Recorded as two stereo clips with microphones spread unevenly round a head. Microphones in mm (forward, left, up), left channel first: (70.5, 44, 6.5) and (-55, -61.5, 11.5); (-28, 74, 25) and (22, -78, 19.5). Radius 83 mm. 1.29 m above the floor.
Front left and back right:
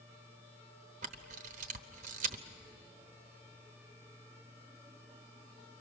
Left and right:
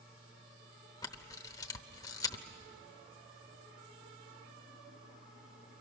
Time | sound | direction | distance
1.0 | a camera shutter | 175° left | 0.9 m